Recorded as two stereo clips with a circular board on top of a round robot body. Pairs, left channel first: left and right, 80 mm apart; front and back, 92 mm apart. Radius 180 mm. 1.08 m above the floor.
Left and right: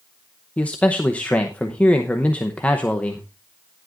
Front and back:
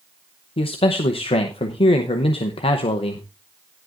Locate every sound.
0.6 s a man speaking: 15° left, 0.9 m